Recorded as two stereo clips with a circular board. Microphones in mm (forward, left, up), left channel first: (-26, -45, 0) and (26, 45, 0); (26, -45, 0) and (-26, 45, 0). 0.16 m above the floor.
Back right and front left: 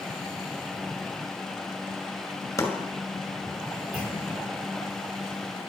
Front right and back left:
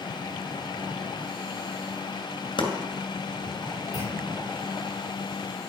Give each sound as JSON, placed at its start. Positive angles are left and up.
{"t": 2.6, "sound": "chopping", "azimuth_deg": -65, "distance_m": 2.5}
{"t": 3.9, "sound": "a clunk", "azimuth_deg": -15, "distance_m": 6.5}